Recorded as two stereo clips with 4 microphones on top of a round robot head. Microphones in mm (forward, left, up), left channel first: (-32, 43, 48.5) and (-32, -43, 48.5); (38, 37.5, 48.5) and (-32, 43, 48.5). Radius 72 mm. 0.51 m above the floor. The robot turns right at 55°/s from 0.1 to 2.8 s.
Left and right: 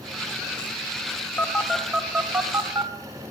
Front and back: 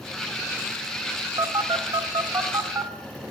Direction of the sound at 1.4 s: 155° left.